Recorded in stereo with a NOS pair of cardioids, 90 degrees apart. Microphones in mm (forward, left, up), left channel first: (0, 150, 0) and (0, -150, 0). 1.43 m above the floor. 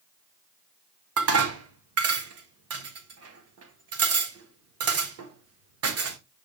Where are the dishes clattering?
55° right, 1.4 m.